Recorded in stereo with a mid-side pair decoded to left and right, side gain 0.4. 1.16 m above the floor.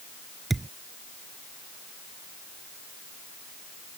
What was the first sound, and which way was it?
A thud, 20° right.